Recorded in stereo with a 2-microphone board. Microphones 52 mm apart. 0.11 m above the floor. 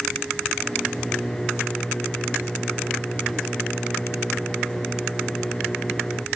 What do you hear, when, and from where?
0.6 s a microwave: 15° left (ahead or behind)